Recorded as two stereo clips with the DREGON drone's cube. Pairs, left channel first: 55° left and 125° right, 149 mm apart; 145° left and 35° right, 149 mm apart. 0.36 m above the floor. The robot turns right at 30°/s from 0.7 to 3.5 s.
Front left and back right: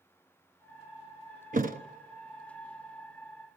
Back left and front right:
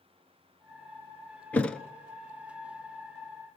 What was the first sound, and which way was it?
A thud, 135° right.